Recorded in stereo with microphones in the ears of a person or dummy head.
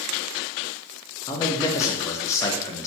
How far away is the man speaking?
About 0.5 m.